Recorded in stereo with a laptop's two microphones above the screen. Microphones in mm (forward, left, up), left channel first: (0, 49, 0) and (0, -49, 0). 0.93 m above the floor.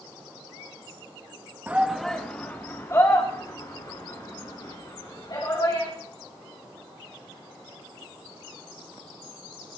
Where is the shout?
20° right (ahead or behind), 1.3 m; by 5.9 s 45° left (ahead or behind), 7 m.